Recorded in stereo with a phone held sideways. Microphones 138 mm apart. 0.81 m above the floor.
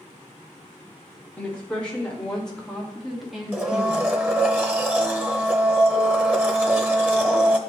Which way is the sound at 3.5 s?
15° right (ahead or behind).